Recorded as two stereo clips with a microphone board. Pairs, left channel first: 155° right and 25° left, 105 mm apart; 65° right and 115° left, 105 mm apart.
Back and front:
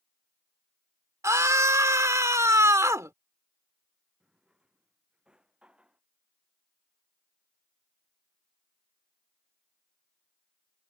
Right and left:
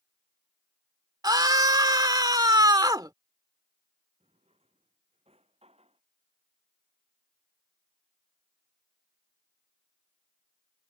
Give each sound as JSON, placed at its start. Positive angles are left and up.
{"t": 1.2, "sound": "a scream", "azimuth_deg": 75}
{"t": 4.2, "sound": "a drawer", "azimuth_deg": 105}